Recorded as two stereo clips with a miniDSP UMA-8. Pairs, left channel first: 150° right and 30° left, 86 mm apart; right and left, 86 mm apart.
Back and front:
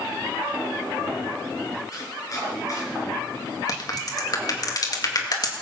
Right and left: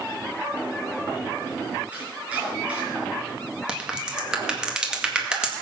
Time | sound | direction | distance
1.9 | chopping | 165° left | 5 m
3.7 | a crack | 170° left | 1.9 m